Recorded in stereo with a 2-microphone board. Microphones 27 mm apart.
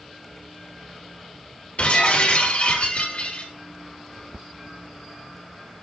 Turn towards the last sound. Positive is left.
turn(degrees=50)  # may be behind; listen again after turning